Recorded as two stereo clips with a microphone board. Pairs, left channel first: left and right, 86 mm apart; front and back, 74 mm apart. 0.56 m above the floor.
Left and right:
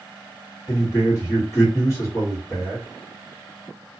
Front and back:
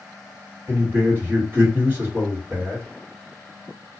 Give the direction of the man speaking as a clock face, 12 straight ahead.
8 o'clock.